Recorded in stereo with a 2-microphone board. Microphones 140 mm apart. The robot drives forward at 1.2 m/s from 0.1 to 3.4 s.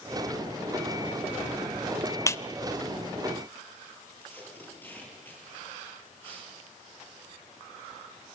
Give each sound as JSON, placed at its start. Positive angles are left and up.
{"t": 2.3, "sound": "a clap", "side_deg": 20, "distance_m": 0.7}
{"t": 4.2, "sound": "tape being pulled", "side_deg": 15, "distance_m": 8.0}